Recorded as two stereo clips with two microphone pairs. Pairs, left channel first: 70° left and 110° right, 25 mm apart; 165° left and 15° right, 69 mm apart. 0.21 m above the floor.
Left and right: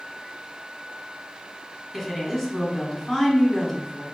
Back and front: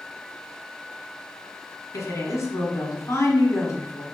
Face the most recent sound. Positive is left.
turn(degrees=155)